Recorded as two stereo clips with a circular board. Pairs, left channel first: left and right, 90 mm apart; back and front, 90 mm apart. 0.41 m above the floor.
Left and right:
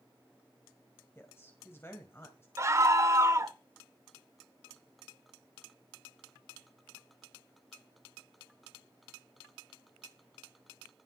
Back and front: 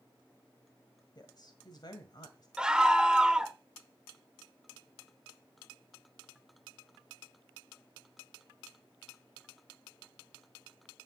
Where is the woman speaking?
150° left, 1.8 m.